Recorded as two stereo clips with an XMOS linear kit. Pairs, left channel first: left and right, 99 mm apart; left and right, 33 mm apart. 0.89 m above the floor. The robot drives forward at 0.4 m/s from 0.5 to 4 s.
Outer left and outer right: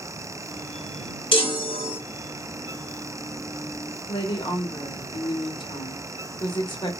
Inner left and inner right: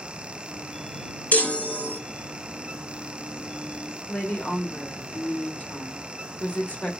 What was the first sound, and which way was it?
A chime, 60° left (ahead or behind).